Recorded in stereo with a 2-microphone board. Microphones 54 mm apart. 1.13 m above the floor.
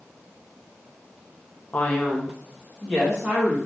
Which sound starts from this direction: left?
A man speaking, at 1.7 s.